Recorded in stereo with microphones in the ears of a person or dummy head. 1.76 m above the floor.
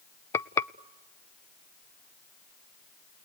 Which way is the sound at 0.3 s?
15° left (ahead or behind).